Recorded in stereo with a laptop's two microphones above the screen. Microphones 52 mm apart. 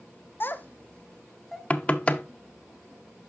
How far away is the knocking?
About 0.6 m.